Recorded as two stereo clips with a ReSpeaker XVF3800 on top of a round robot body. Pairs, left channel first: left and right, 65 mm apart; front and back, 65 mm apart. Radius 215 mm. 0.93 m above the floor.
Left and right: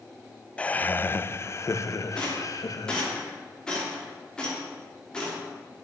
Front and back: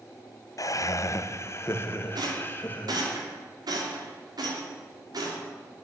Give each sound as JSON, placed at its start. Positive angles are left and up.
{"t": 0.6, "sound": "laughter", "azimuth_deg": 20, "distance_m": 0.8}
{"t": 2.1, "sound": "a rattle", "azimuth_deg": 170, "distance_m": 3.0}